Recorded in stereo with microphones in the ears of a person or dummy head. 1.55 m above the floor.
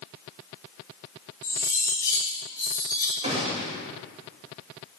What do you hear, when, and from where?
1.4 s cutlery clinking: 20° left (ahead or behind), 2 m
3.2 s a gunshot: 30° right (ahead or behind), 2.5 m